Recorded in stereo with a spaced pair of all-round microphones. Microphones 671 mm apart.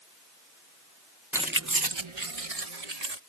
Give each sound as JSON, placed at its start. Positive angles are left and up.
{"t": 1.3, "sound": "keys jangling", "side_deg": 0}